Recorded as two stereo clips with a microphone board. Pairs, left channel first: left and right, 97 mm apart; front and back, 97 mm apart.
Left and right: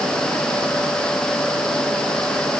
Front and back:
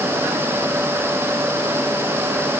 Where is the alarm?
No alarm in this recording.